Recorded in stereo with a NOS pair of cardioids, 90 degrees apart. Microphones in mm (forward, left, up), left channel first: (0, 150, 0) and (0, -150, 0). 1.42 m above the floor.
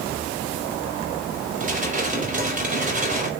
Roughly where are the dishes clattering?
Ahead right.